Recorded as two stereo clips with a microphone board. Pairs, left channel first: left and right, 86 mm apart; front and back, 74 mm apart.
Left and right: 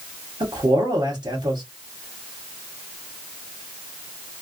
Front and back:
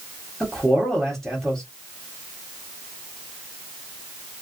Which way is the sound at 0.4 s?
90° right.